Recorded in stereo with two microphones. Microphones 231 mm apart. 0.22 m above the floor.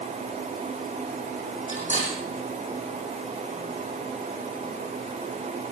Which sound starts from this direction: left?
Cutlery clinking, at 1.7 s.